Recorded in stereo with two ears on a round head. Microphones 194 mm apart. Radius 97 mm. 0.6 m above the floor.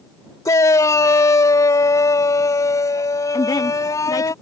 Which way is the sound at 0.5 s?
15° left (ahead or behind).